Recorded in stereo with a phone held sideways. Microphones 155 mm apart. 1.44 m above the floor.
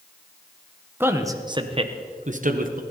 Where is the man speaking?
15° right (ahead or behind), 1.3 m; by 2.8 s 65° right (ahead or behind), 1.4 m.